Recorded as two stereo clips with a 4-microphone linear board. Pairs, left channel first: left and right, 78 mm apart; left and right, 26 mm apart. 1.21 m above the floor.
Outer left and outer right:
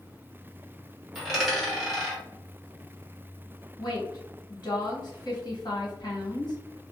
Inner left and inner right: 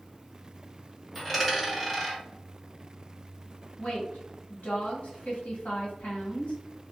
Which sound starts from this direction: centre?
A dropped coin, at 1.1 s.